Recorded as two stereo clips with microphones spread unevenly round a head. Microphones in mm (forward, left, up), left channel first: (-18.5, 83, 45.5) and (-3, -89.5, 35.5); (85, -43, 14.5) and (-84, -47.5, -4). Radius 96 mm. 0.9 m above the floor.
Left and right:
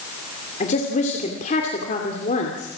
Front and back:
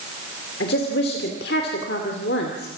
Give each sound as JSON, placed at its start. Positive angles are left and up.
{"t": 0.6, "sound": "a woman speaking", "azimuth_deg": 45, "distance_m": 2.5}